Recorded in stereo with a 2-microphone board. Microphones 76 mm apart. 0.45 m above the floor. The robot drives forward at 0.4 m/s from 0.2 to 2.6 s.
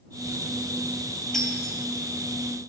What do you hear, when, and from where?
1.3 s breaking glass: 5° left (ahead or behind), 2.5 m